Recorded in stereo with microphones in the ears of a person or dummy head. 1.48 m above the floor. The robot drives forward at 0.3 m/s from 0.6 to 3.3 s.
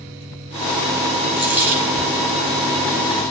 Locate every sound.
1.4 s a dropped coin: 10° right (ahead or behind), 1.5 m